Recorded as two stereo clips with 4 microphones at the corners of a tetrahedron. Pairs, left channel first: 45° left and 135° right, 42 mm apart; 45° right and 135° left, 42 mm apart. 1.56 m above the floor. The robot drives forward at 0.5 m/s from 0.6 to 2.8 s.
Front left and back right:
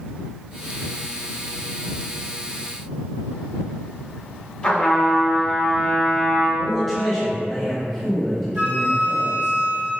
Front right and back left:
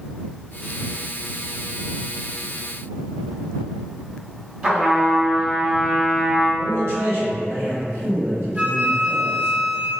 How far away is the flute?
About 0.8 m.